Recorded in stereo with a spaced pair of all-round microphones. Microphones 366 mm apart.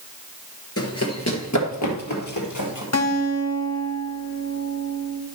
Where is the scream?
No scream in this recording.